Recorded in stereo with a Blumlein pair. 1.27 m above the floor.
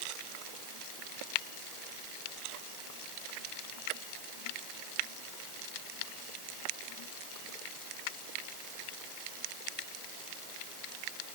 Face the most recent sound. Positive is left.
No sound to turn to.